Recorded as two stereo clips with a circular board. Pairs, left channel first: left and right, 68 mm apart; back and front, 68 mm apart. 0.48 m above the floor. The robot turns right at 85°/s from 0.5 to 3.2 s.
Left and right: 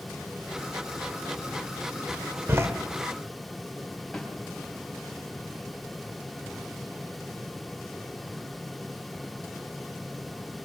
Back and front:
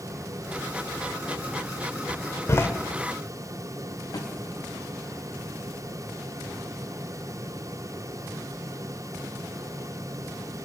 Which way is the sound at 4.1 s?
175° left.